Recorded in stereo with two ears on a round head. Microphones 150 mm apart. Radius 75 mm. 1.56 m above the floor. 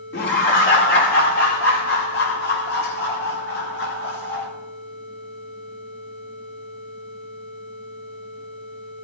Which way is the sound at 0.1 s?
70° left (ahead or behind).